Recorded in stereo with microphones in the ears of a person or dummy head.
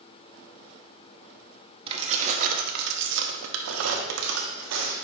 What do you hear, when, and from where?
1.9 s keys jangling: 30° right (ahead or behind), 1.1 m; by 4.9 s 75° right (ahead or behind), 1.4 m